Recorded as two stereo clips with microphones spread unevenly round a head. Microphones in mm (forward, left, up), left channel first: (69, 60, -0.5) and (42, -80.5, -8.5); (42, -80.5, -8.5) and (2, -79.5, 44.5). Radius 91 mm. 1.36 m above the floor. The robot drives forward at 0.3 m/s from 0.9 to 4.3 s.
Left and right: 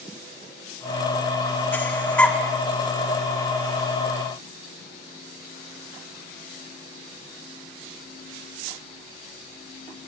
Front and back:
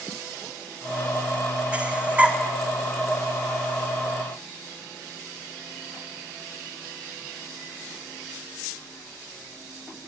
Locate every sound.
1.7 s breathing: 155° left, 1.5 m; by 2.4 s 160° left, 1.6 m